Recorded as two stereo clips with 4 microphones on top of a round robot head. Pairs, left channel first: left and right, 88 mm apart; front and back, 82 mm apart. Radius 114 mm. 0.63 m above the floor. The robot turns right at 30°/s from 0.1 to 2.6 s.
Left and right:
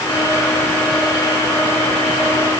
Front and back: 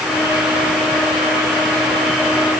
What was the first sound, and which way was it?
Only background noise.